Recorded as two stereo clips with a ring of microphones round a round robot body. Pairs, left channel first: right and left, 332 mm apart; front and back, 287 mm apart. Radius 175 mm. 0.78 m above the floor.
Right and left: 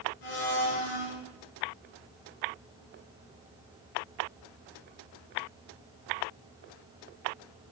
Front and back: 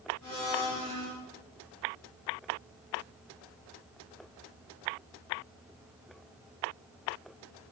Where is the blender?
85° right, 9.5 m.